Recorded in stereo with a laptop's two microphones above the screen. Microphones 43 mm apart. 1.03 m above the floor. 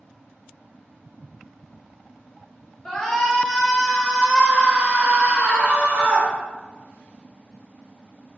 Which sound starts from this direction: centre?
A shout, at 2.9 s.